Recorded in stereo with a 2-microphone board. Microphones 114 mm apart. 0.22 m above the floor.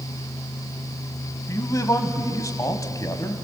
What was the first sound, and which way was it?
A man speaking, 30° left (ahead or behind).